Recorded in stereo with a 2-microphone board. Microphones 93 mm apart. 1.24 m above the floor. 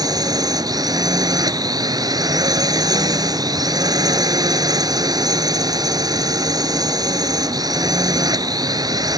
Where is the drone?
50° right (ahead or behind).